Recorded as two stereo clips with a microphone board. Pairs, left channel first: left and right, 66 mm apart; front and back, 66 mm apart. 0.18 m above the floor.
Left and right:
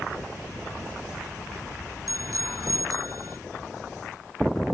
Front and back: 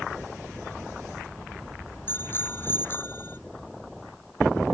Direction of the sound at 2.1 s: 55° right.